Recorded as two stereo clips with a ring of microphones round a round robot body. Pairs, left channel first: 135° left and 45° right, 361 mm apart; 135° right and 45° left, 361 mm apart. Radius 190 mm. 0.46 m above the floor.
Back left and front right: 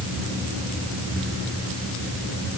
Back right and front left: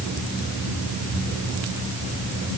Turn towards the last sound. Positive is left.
No sound to turn to.